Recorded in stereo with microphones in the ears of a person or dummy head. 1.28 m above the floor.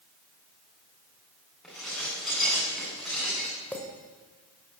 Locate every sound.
1.6 s dishes clattering: 5° left (ahead or behind), 9.5 m
3.7 s a clink: 10° left (ahead or behind), 4 m